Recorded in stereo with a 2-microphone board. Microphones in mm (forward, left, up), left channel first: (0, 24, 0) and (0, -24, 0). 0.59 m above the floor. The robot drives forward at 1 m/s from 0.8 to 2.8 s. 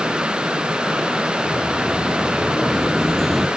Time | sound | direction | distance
1.4 | footsteps | 10° left (ahead or behind) | 3 m